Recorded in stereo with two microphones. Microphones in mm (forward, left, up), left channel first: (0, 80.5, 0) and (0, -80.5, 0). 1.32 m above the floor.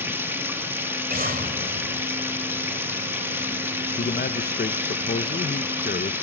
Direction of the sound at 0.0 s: 15° right (ahead or behind).